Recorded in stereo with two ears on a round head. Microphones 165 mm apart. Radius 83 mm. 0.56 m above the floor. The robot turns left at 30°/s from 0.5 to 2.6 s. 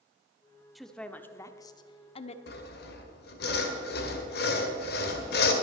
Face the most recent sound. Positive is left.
turn(degrees=55)  # may be behind; listen again after turning